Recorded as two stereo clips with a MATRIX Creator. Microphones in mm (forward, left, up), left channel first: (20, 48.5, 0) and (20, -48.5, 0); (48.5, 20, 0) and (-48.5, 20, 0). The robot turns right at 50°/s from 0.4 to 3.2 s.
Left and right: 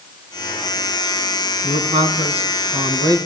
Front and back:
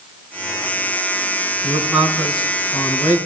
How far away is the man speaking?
About 4.5 m.